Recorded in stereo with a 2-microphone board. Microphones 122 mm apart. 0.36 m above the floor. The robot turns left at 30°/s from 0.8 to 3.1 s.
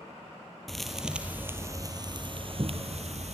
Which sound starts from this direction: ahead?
A thud, at 0.7 s.